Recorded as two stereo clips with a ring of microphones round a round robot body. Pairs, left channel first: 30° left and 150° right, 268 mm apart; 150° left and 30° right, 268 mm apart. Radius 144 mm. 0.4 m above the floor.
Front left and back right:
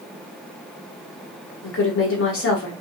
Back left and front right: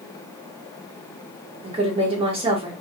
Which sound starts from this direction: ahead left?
A woman speaking, at 1.6 s.